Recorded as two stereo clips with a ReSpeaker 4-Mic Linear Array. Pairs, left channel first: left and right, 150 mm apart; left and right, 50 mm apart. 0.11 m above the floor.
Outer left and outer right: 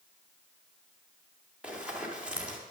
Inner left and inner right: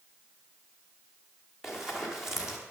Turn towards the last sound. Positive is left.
turn(degrees=-5)  # may be behind; listen again after turning